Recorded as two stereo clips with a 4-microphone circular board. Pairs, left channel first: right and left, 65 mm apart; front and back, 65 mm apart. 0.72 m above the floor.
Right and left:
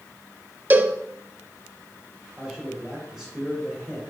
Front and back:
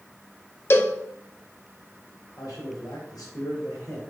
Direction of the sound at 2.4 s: 5° left.